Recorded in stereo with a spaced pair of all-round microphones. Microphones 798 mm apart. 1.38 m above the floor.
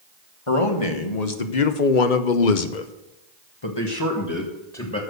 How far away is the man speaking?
About 1.9 m.